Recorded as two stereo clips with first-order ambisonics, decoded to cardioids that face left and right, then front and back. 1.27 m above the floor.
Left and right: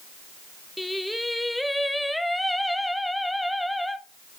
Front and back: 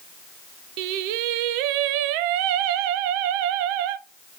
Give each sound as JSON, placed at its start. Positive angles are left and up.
{"t": 0.8, "sound": "singing", "azimuth_deg": 175, "distance_m": 0.5}